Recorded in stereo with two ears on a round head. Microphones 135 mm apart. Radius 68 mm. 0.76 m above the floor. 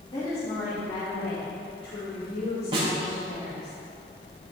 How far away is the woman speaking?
About 1.9 m.